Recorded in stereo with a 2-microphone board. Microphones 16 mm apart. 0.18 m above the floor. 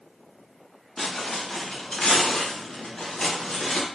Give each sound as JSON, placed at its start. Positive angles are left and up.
{"t": 1.0, "sound": "footsteps", "side_deg": 20, "distance_m": 1.4}